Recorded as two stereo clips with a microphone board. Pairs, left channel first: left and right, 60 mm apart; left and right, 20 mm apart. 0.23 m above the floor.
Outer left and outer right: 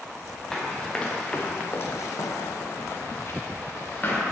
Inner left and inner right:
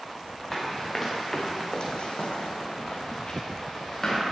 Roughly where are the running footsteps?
Centre.